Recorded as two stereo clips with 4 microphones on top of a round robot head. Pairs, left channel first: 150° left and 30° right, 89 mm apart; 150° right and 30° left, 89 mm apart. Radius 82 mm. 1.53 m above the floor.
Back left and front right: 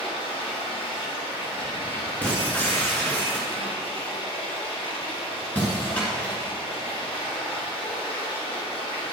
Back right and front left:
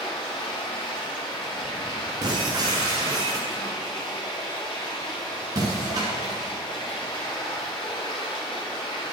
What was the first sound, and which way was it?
Running water, 175° left.